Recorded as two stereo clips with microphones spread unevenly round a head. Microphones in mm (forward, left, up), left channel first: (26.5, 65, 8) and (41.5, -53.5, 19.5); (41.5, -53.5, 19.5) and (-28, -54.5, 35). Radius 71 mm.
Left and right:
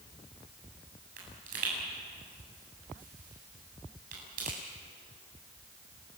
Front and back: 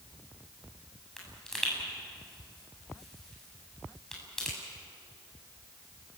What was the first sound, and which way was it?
A pop, 85° right.